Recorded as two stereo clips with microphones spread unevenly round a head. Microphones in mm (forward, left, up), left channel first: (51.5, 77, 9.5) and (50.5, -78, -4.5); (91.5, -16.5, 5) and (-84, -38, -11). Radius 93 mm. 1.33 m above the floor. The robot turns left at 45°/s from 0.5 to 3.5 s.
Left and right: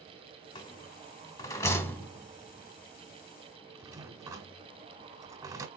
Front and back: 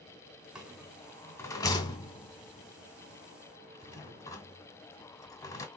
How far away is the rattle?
About 1.3 m.